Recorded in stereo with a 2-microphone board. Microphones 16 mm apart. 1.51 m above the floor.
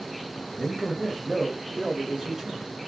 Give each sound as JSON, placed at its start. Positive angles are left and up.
{"t": 0.5, "sound": "a man speaking", "side_deg": 15, "distance_m": 0.8}